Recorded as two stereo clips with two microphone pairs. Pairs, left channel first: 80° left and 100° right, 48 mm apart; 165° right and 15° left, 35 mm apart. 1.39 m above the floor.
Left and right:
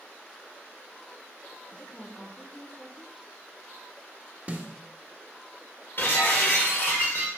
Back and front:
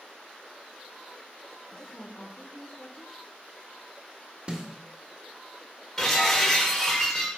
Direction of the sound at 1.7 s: 150° left.